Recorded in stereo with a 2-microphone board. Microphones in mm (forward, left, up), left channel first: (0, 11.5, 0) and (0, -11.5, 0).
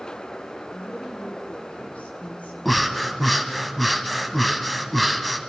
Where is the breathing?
5° left (ahead or behind), 0.9 m.